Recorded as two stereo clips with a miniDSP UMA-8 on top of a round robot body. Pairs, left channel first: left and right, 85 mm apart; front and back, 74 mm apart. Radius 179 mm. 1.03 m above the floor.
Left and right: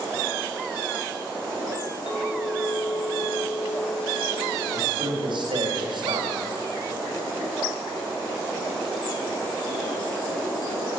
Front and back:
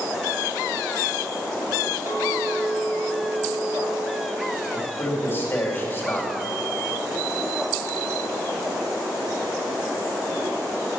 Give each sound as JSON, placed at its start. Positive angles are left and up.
{"t": 2.1, "sound": "a clink", "azimuth_deg": 120, "distance_m": 1.5}
{"t": 4.7, "sound": "a man speaking", "azimuth_deg": -65, "distance_m": 2.5}